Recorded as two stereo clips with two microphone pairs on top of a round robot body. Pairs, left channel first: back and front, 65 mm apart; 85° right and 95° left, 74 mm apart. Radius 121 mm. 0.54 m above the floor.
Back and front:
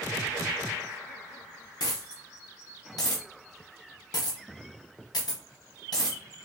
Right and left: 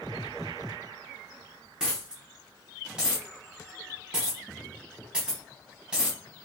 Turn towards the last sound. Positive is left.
turn(degrees=165)